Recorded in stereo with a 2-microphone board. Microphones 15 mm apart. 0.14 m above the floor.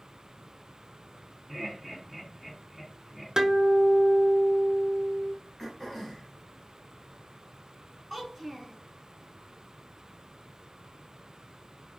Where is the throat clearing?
25° left (ahead or behind), 1.2 m.